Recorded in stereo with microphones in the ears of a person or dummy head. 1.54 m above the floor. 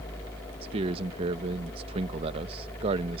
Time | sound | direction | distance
0.6 | a man speaking | 30° right (ahead or behind) | ?